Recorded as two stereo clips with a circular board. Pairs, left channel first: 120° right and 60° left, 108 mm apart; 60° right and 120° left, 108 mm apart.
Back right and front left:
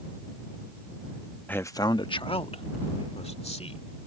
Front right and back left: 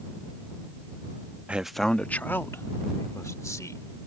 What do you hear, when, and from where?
1.5 s a man speaking: 175° right; by 4.0 s 115° right